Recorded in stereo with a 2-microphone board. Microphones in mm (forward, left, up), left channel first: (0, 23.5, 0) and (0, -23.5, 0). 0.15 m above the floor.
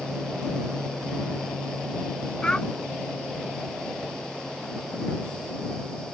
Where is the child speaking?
20° left (ahead or behind).